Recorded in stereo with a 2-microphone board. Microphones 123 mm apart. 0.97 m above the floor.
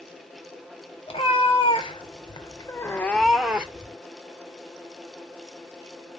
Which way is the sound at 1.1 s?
45° left (ahead or behind).